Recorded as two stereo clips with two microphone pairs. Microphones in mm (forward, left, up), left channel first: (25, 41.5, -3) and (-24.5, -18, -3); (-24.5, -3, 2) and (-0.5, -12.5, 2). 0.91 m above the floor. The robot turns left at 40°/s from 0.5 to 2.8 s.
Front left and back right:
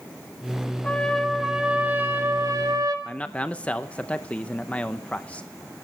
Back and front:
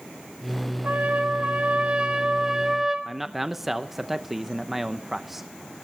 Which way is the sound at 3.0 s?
35° left.